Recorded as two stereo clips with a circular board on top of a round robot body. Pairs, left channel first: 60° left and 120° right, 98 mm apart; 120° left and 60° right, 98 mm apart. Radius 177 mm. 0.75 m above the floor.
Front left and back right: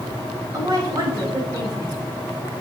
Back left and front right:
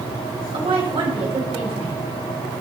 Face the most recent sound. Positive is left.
turn(degrees=-75)